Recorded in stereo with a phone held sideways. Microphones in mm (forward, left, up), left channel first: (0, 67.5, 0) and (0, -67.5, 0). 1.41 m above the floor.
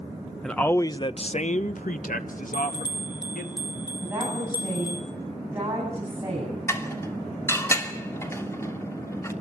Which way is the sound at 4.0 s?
15° right (ahead or behind).